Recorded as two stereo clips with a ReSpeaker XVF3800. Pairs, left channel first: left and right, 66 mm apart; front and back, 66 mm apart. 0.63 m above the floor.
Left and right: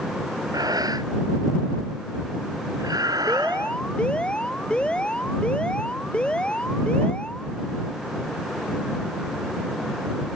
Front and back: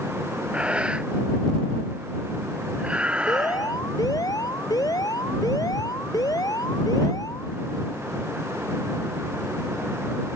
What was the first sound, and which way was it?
Breathing, 110° right.